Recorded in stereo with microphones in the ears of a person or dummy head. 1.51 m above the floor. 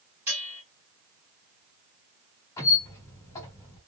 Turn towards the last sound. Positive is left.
turn(degrees=15)  # may be behind; listen again after turning